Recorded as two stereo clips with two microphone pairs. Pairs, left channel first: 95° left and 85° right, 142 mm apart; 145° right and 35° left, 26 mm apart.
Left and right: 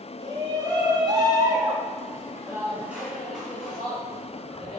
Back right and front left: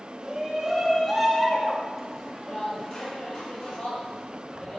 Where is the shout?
30° right, 1.8 m; by 4.8 s 175° right, 2.5 m.